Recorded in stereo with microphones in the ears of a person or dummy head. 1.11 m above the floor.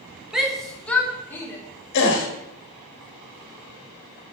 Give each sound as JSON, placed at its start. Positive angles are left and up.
{"t": 0.3, "sound": "a shout", "side_deg": -5, "distance_m": 0.9}
{"t": 1.9, "sound": "a gasp", "side_deg": 55, "distance_m": 1.1}